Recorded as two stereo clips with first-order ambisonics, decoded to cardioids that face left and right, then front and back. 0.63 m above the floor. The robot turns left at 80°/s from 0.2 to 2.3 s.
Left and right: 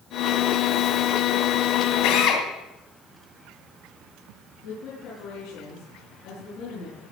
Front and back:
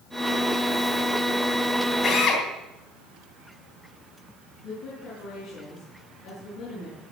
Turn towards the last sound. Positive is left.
turn(degrees=55)